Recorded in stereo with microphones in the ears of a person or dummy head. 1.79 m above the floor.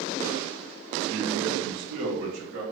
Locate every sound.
1.1 s a man speaking: 65° right (ahead or behind), 0.8 m; by 2.6 s 60° right (ahead or behind), 1.3 m